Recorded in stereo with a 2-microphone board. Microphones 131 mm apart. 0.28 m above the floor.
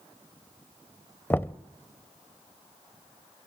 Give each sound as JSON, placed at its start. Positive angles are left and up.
{"t": 1.3, "sound": "knocking", "side_deg": 15, "distance_m": 0.6}